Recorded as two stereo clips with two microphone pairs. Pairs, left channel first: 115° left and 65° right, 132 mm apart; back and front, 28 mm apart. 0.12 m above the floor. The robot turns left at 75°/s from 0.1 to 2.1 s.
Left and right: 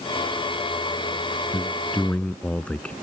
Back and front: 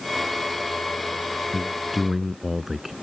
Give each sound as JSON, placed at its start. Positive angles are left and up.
{"t": 1.5, "sound": "a man speaking", "azimuth_deg": 100}